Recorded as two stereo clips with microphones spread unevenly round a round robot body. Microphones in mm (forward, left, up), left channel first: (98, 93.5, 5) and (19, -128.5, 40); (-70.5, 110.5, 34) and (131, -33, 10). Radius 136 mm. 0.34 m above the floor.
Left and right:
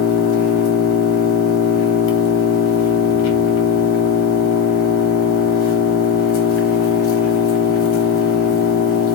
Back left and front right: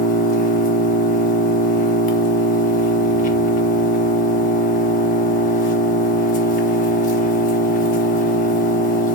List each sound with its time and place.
0.0 s an engine running: 85° left, 1.0 m